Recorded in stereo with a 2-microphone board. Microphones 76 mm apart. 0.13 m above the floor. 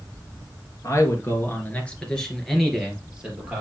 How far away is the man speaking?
About 3 m.